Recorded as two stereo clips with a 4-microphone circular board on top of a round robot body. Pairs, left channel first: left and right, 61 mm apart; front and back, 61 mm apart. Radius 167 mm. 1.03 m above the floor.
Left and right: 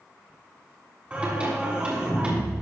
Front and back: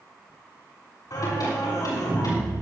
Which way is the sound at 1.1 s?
20° right.